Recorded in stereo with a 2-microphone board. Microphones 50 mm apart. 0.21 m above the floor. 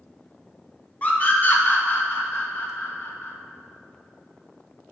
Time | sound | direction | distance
1.0 | a scream | 35° left (ahead or behind) | 1.1 m